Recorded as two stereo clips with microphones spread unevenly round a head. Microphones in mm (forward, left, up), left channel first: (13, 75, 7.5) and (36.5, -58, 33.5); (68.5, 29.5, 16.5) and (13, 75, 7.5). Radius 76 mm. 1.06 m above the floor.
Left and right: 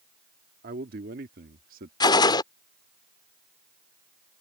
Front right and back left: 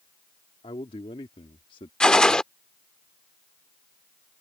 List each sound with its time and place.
0.6 s a man speaking: 65° right; by 1.9 s 60° right
2.0 s a gunshot: 35° left